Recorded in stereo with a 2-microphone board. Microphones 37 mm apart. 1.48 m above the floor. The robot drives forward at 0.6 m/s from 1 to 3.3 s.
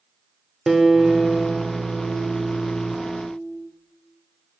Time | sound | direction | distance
0.7 | a guitar | 10° right (ahead or behind) | 1.9 m